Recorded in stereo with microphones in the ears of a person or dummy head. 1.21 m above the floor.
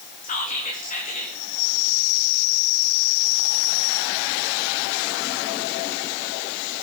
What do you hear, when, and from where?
0.2 s whispering: 40° left (ahead or behind), 2 m